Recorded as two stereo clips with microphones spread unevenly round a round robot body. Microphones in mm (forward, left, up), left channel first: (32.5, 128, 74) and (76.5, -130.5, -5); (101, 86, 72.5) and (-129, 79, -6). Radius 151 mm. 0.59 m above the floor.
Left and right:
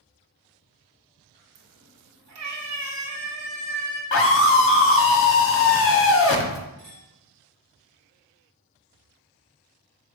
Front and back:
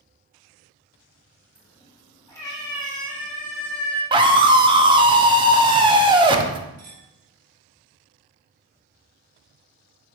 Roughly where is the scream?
Behind left.